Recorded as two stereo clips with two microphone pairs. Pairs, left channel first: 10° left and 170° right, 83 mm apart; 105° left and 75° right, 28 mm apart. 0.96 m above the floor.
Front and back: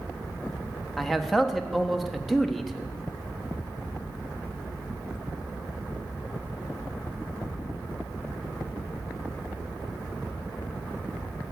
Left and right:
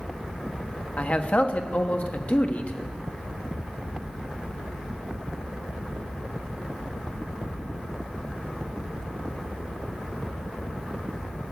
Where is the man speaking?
95° left, 1.3 m.